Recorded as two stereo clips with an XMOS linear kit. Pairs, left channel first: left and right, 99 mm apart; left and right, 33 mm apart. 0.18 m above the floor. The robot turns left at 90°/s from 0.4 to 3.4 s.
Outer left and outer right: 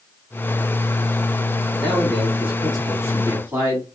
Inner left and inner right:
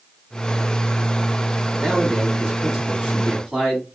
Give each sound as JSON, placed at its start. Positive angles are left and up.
{"t": 1.8, "sound": "a man speaking", "azimuth_deg": 15, "distance_m": 1.5}